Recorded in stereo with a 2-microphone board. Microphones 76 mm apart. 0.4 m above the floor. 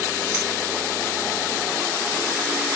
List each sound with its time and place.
0.3 s keys jangling: 25° right (ahead or behind), 4 m